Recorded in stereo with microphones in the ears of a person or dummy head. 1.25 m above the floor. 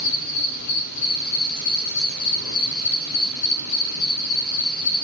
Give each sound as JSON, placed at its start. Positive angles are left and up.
{"t": 0.0, "sound": "an insect", "side_deg": 65, "distance_m": 5.5}